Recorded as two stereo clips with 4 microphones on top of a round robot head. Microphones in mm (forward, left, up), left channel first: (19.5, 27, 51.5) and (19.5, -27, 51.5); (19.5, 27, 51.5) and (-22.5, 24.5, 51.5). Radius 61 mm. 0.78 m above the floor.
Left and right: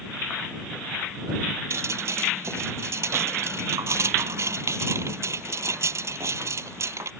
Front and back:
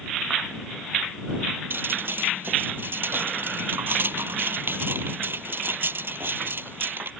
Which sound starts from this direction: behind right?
Dripping, at 1.7 s.